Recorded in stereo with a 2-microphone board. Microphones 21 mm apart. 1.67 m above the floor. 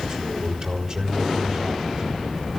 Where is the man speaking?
35° right (ahead or behind), 5 m.